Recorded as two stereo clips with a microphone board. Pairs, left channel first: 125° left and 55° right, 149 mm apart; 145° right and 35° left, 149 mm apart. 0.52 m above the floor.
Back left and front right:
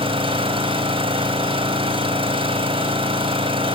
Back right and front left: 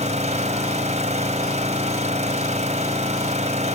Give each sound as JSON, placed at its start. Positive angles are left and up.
{"t": 0.0, "sound": "an engine running", "azimuth_deg": -5, "distance_m": 2.5}